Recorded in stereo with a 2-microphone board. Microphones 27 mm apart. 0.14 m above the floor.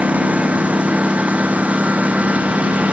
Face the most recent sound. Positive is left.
turn(degrees=-60)  # may be behind; listen again after turning